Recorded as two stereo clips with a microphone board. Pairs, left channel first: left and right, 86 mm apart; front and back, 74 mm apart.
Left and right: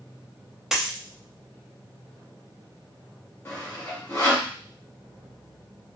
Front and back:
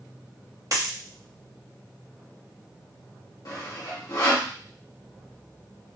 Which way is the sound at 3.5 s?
35° left.